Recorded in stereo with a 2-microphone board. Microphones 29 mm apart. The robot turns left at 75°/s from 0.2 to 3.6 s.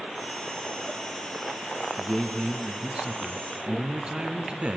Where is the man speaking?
25° left, 1.5 m; by 4.8 s 95° right, 1.5 m.